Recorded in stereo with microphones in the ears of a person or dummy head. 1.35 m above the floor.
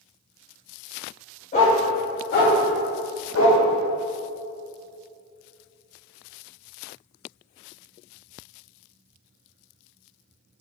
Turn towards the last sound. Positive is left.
turn(degrees=65)  # may be behind; listen again after turning